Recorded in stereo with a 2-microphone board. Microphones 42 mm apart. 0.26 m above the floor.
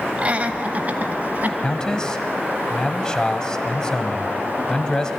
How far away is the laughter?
About 1.1 m.